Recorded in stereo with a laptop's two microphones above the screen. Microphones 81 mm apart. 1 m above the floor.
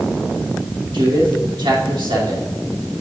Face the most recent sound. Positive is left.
turn(degrees=-75)  # may be behind; listen again after turning